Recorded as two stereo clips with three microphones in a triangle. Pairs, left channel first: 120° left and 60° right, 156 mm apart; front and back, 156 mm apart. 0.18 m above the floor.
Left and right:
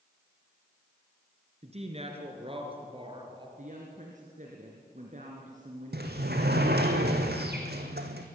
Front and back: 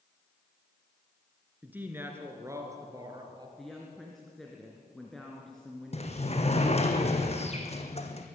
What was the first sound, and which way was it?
A woman speaking, 100° right.